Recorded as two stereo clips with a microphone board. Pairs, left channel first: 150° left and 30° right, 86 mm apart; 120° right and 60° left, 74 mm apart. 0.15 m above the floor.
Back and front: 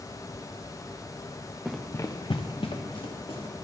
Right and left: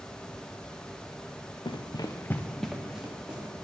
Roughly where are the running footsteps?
Behind right.